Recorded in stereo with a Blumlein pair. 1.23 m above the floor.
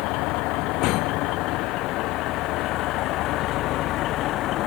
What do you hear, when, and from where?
0.0 s a vehicle: 40° left; by 4.7 s 35° left